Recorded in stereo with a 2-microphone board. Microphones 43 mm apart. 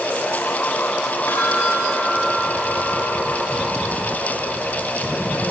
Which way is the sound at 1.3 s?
65° left (ahead or behind).